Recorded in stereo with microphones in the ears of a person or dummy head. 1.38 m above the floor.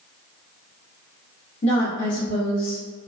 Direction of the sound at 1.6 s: 35° left (ahead or behind).